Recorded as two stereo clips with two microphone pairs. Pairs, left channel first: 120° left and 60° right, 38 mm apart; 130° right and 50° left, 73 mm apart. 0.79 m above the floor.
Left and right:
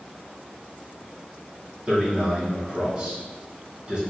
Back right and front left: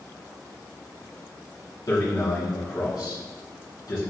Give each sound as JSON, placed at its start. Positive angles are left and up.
{"t": 1.9, "sound": "a man speaking", "azimuth_deg": -115, "distance_m": 1.5}